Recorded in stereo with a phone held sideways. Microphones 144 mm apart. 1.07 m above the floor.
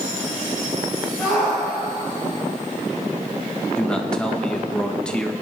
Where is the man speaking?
5° left (ahead or behind), 1.5 m.